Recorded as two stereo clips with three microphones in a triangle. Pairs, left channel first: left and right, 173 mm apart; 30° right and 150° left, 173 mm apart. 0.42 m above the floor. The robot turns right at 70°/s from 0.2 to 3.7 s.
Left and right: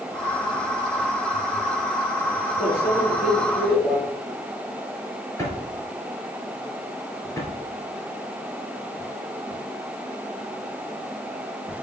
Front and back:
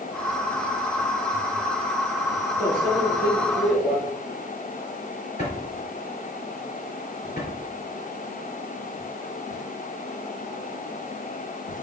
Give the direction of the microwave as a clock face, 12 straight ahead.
2 o'clock.